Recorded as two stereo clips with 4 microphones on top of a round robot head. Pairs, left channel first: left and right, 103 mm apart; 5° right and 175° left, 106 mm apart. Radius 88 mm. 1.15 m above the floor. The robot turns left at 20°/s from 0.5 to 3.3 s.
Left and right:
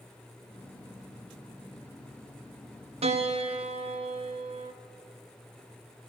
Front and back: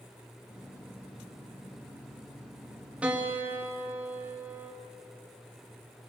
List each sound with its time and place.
3.0 s a piano: 105° right, 2.5 m; by 4.7 s 110° right, 2.5 m